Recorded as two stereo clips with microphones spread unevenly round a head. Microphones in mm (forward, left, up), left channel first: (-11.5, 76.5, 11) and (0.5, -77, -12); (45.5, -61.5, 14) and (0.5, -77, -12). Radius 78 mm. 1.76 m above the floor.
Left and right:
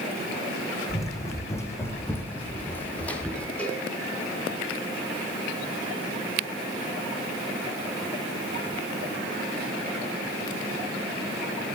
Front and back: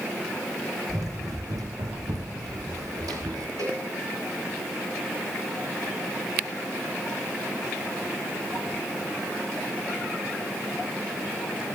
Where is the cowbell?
175° left, 5 m.